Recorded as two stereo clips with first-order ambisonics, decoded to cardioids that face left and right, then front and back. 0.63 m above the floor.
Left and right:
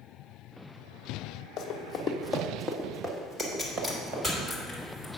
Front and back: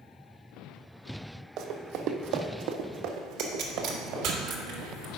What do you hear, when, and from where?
1.6 s running footsteps: 140° left, 1.2 m; by 4.3 s 140° right, 2.5 m
3.4 s a pop: 170° right, 1.5 m